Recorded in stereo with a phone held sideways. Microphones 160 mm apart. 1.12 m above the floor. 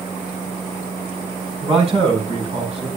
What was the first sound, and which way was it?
A man speaking, 40° right (ahead or behind).